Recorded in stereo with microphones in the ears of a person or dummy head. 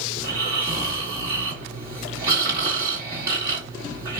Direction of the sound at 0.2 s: 25° right (ahead or behind).